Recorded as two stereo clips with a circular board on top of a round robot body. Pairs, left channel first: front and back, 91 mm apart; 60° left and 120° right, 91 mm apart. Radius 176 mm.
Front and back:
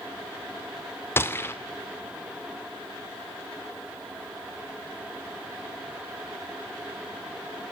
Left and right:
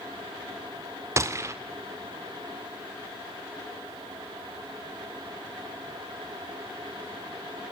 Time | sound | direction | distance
1.2 | a gunshot | 65° right | 2.5 m